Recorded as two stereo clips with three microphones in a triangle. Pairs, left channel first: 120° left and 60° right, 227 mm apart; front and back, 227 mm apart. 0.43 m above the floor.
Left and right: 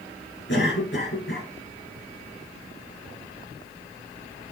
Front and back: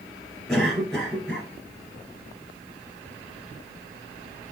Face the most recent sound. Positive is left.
turn(degrees=90)